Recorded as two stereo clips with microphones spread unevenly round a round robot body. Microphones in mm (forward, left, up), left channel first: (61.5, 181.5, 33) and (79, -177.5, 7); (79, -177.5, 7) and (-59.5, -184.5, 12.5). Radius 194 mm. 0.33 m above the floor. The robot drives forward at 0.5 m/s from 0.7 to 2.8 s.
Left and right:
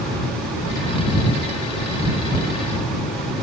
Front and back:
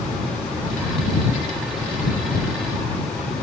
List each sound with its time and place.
Only background noise.